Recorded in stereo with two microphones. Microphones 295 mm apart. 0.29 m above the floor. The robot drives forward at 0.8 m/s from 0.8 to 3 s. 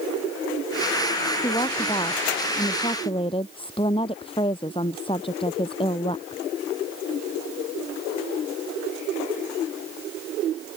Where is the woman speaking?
15° left (ahead or behind); by 6.4 s 20° left (ahead or behind).